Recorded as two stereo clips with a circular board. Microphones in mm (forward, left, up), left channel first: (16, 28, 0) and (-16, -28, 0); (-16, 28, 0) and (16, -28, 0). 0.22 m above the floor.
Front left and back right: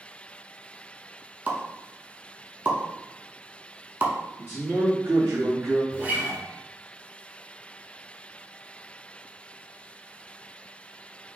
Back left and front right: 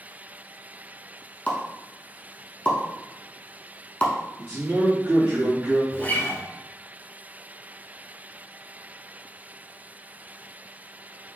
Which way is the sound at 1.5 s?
175° right.